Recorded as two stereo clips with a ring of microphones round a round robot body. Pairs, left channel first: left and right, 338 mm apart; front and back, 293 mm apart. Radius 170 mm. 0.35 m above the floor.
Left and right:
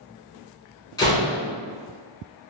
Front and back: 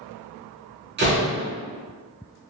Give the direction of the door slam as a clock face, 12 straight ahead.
7 o'clock.